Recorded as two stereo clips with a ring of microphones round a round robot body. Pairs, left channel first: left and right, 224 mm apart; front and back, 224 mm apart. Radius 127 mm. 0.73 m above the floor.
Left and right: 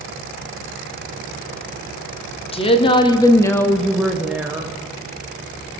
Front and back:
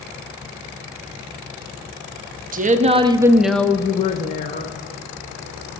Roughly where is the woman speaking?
Behind left.